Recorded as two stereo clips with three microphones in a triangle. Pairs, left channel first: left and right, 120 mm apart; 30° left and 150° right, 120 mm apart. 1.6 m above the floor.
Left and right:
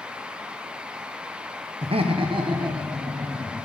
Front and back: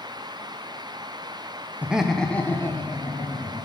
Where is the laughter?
75° right, 0.6 m; by 3.6 s 30° right, 1.8 m.